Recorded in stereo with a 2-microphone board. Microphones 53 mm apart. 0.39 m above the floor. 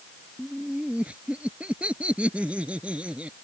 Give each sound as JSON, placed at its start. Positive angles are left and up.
{"t": 0.4, "sound": "laughter", "side_deg": -25}